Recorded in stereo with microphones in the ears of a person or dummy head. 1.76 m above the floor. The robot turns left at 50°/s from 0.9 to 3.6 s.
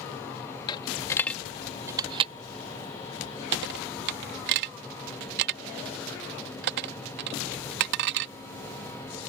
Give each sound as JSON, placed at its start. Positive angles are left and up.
{"t": 0.7, "sound": "a dropped coin", "side_deg": 25}